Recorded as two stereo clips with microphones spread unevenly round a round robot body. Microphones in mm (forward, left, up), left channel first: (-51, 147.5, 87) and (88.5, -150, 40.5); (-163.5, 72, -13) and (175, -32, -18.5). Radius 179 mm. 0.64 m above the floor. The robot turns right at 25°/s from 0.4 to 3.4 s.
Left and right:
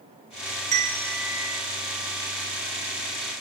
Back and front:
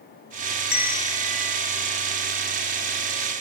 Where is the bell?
130° right, 1.6 m; by 1.6 s 110° right, 1.6 m.